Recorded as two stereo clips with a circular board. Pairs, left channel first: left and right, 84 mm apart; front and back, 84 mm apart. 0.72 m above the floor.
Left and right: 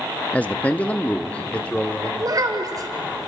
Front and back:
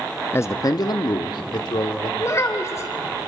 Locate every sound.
0.3 s a man speaking: 30° left, 0.5 m; by 2.1 s 15° left, 1.8 m
2.2 s a child speaking: 55° right, 2.5 m